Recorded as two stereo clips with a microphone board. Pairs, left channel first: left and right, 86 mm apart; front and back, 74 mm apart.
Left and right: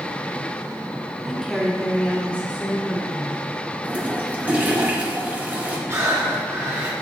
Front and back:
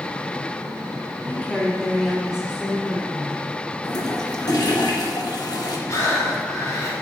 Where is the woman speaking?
Straight ahead, 1.0 m; by 3.5 s 140° left, 1.3 m.